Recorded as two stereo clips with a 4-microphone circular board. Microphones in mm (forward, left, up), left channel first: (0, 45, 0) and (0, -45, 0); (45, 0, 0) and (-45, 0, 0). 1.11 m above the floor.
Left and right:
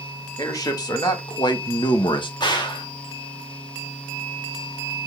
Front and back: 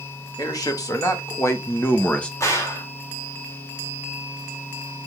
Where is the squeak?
I don't hear a squeak.